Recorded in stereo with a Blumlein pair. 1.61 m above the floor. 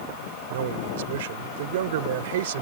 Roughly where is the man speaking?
Ahead right.